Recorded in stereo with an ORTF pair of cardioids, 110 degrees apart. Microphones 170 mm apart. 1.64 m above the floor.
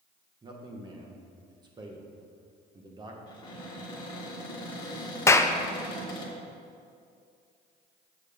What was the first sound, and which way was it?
A man speaking, 25° right.